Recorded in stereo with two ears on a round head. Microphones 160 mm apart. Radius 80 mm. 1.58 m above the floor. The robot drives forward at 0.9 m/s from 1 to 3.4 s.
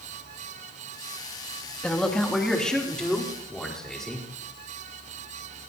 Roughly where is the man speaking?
Centre.